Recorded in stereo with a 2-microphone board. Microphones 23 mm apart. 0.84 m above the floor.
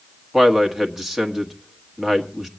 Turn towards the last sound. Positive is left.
turn(degrees=-10)  # may be behind; listen again after turning